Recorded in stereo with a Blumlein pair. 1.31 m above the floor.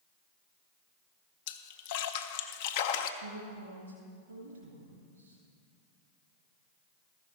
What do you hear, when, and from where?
1.5 s a splash: 50° left, 0.6 m
3.2 s a woman speaking: 65° right, 1.9 m